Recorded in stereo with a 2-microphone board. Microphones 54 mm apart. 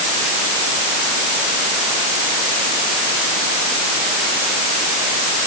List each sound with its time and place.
Only background noise.